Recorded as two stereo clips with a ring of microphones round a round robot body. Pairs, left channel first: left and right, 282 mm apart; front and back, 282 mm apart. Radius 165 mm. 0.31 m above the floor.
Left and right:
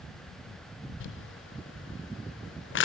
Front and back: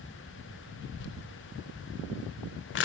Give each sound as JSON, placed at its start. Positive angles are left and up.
{"t": 1.0, "sound": "crumpling", "azimuth_deg": 45, "distance_m": 0.5}